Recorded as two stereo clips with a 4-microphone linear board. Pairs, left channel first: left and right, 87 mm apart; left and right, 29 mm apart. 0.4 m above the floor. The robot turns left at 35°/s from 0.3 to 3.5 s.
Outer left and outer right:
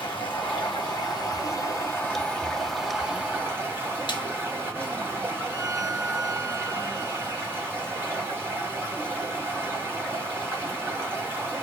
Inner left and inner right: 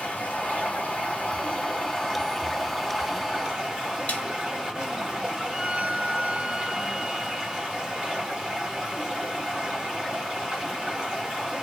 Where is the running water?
85° left, 1.4 m; by 11.6 s 30° right, 1.4 m.